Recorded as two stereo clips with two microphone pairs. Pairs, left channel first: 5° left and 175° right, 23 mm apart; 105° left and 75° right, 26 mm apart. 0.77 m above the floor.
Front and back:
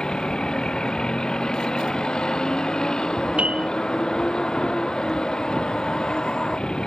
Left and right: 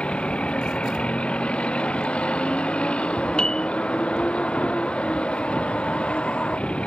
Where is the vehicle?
65° left.